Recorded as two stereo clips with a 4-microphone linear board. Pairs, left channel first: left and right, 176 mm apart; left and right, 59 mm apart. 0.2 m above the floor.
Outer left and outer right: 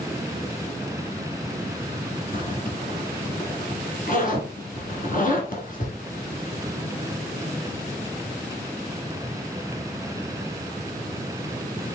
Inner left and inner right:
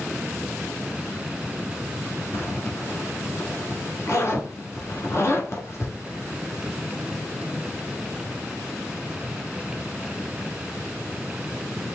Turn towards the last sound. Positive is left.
turn(degrees=50)  # may be behind; listen again after turning